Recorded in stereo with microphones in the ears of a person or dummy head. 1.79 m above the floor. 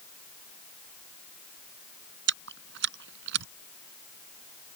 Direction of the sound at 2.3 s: 70° right (ahead or behind).